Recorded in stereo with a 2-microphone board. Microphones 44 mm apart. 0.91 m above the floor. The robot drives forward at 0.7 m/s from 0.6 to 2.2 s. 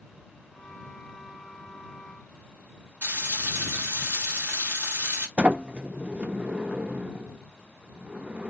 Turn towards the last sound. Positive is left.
turn(degrees=-25)  # may be behind; listen again after turning